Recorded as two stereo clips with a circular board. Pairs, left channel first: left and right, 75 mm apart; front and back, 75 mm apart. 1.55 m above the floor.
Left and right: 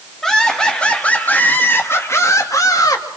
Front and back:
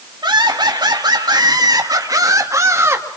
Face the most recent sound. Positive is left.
turn(degrees=125)